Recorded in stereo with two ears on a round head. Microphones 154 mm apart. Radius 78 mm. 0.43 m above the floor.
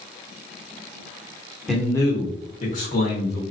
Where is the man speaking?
Centre (ahead or behind), 0.9 m; by 3.4 s 60° left (ahead or behind), 1.4 m.